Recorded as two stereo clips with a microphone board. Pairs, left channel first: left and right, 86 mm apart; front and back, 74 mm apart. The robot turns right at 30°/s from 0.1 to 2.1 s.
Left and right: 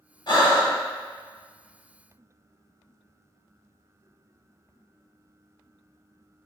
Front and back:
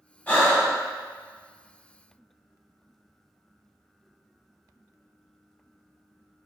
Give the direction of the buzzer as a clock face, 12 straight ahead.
No buzzer in this recording.